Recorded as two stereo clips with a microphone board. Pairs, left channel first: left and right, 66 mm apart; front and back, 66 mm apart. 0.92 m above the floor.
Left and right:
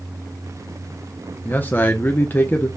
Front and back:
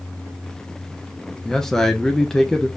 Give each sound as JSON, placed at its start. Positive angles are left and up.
{"t": 1.4, "sound": "a man speaking", "azimuth_deg": 70, "distance_m": 0.8}